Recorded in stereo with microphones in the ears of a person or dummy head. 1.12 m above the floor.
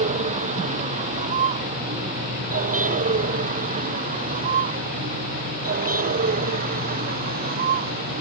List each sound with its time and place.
0.0 s a vehicle: 30° right (ahead or behind); by 8.2 s 35° right (ahead or behind)